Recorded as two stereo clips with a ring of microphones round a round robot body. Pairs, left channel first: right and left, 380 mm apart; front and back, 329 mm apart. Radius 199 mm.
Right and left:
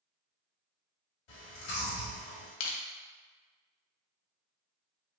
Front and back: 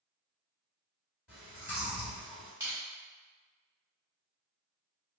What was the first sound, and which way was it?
Chewing, 95° right.